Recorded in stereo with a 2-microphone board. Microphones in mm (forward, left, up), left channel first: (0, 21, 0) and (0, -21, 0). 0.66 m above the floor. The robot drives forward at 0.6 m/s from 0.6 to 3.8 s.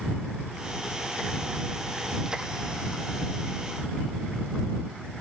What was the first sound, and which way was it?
Only background noise.